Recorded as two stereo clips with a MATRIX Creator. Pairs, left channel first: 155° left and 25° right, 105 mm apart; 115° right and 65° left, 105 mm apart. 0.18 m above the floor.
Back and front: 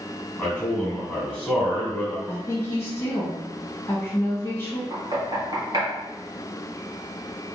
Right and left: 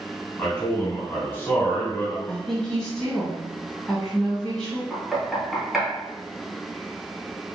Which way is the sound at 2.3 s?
165° left.